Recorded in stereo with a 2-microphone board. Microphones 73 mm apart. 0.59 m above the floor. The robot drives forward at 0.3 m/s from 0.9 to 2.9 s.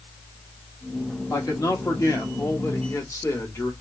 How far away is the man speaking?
About 1.2 m.